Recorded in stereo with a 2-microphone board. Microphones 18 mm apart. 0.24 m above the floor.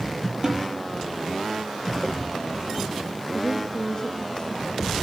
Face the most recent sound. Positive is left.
turn(degrees=35)  # may be behind; listen again after turning